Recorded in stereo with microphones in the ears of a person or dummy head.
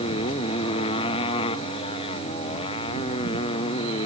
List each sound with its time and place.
0.0 s a motorcycle: 30° left (ahead or behind)